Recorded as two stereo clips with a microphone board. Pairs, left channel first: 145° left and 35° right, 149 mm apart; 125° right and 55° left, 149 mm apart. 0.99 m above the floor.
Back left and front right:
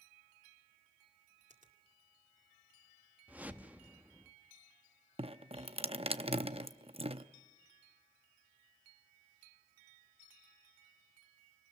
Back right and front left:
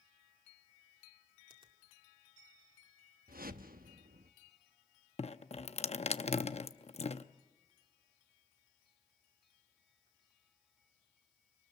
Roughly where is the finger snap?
Ahead.